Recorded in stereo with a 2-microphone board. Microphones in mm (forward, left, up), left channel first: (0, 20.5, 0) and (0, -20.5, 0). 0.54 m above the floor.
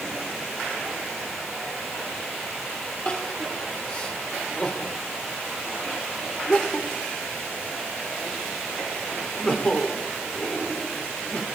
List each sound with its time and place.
3.0 s crying: 30° left (ahead or behind), 1.9 m